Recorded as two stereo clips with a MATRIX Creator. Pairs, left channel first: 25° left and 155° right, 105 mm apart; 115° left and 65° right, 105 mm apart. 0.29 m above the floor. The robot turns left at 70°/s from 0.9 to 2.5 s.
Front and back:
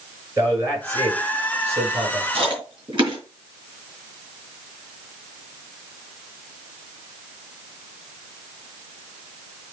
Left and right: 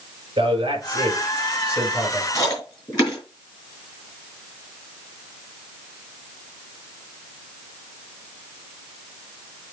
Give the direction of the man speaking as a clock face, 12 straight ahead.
3 o'clock.